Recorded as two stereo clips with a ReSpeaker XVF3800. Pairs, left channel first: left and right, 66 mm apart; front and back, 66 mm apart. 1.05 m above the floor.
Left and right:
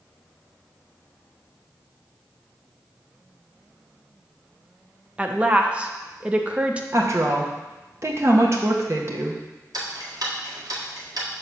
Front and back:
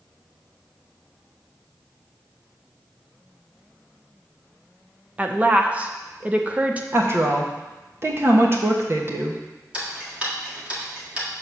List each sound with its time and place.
5.2 s a woman speaking: 140° right, 0.6 m
6.9 s a woman speaking: 135° right, 1.2 m
9.7 s ticking: 110° right, 1.5 m